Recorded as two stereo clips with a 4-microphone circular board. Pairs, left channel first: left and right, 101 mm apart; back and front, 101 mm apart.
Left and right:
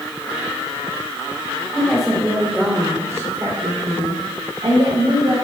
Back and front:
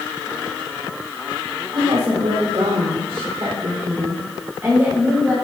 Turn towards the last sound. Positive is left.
turn(degrees=-80)